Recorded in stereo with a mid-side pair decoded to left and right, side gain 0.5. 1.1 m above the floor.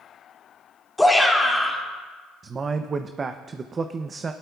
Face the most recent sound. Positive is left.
turn(degrees=-35)